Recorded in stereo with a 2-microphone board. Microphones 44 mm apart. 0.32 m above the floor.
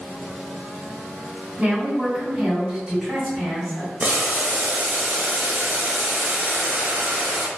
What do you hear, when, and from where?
1.6 s a woman speaking: 25° right (ahead or behind), 1.6 m; by 3.9 s 5° left (ahead or behind), 2 m
4.0 s boiling: 40° right (ahead or behind), 0.6 m